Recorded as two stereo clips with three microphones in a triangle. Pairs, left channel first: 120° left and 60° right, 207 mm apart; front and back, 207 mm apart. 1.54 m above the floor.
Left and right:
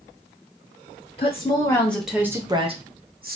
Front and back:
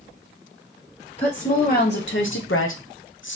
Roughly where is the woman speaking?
Ahead left.